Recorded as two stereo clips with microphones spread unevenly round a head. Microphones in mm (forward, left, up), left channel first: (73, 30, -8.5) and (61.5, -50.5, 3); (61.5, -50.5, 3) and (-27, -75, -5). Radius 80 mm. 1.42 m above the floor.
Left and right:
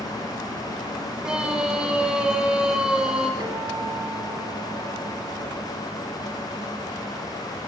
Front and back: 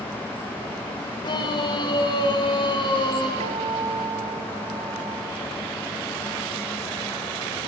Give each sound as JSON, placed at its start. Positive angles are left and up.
{"t": 1.2, "sound": "a scream", "azimuth_deg": -20, "distance_m": 6.5}
{"t": 3.4, "sound": "a guitar", "azimuth_deg": -165, "distance_m": 2.0}